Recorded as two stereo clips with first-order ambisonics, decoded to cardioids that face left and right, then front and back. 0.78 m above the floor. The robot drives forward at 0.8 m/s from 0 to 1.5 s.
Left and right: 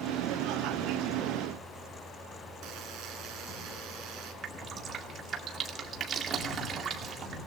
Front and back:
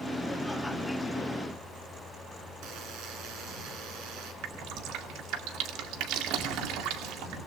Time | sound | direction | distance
2.6 | a buzzer | 140° right | 4.5 m
4.4 | dripping | 150° right | 2 m